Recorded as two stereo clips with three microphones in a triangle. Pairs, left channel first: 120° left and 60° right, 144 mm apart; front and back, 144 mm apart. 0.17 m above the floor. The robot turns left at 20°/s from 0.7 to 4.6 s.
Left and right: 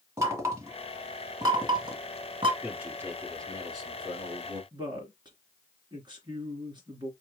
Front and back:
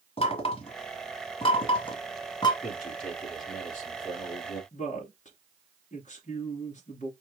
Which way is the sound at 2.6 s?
25° left.